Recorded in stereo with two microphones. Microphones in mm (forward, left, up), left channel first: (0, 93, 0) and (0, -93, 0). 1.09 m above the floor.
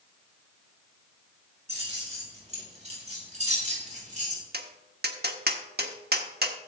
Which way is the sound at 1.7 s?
35° right (ahead or behind).